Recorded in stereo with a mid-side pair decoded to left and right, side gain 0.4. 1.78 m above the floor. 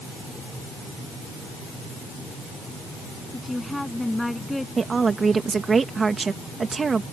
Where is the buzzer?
I don't hear a buzzer.